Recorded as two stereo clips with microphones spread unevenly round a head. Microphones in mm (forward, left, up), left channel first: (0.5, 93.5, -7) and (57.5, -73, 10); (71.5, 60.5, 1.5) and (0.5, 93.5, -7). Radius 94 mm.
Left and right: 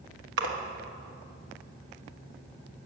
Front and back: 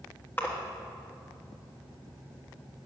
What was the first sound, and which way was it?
A splash, 105° right.